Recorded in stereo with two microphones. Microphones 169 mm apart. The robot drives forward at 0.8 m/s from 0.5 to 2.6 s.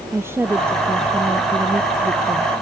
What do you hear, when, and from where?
0.1 s a woman speaking: 15° right (ahead or behind)